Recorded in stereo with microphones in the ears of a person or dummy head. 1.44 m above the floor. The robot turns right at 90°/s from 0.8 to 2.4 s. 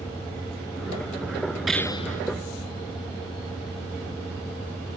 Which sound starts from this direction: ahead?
A gunshot, at 1.7 s.